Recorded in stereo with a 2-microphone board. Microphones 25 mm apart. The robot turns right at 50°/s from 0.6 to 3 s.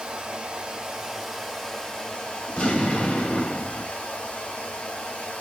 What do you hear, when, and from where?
0.0 s running water: 45° right, 1.7 m; by 5.4 s 75° left, 1.7 m
2.5 s an explosion: 40° left (ahead or behind), 1.6 m; by 3.9 s 65° left (ahead or behind), 1.6 m